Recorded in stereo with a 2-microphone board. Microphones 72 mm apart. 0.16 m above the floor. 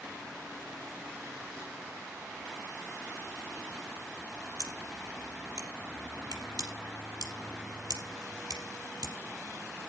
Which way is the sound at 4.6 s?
75° right (ahead or behind).